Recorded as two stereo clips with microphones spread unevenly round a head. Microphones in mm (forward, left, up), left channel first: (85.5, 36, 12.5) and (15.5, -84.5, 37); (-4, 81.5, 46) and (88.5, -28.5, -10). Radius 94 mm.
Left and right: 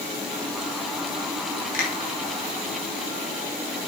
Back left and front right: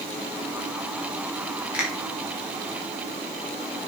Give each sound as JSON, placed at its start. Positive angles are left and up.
{"t": 1.7, "sound": "a finger snap", "azimuth_deg": 35, "distance_m": 4.5}